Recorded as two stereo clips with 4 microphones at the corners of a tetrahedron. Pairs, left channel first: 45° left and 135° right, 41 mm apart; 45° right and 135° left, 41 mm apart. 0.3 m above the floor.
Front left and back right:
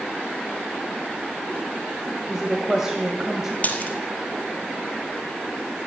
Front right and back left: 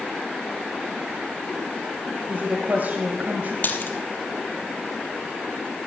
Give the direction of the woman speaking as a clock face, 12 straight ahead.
7 o'clock.